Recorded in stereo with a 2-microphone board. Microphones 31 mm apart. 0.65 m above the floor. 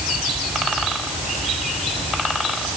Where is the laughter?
I don't hear laughter.